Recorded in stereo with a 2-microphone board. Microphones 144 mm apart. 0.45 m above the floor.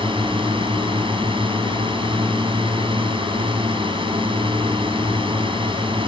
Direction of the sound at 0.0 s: 35° right (ahead or behind).